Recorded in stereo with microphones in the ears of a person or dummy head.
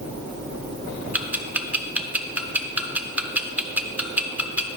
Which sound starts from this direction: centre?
Ticking, at 1.1 s.